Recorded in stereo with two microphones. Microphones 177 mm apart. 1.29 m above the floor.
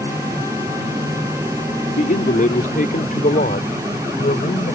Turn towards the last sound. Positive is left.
turn(degrees=55)  # may be behind; listen again after turning